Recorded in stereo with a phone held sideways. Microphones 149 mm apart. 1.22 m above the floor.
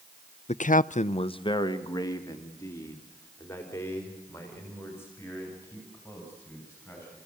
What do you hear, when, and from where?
0.5 s a man speaking: 50° left (ahead or behind), 0.5 m; by 7.2 s 15° left (ahead or behind), 7.5 m